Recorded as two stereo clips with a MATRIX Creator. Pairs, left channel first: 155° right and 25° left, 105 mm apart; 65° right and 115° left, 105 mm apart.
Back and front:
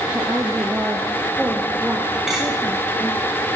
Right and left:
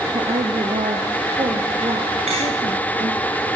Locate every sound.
0.1 s a woman speaking: 95° left, 4 m; by 3.3 s 105° left, 5.5 m
2.3 s cutlery clinking: 110° left, 7.5 m